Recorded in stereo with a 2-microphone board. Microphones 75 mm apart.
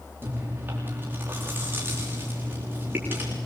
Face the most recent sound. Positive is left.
turn(degrees=-30)  # may be behind; listen again after turning